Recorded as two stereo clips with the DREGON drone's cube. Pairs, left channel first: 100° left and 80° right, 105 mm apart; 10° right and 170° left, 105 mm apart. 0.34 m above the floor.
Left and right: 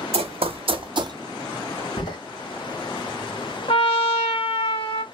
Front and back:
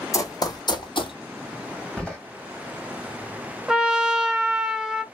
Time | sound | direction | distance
0.1 | running footsteps | 70° right | 0.9 m
2.0 | a door slam | 70° left | 1.4 m
3.7 | a trumpet | 90° left | 0.5 m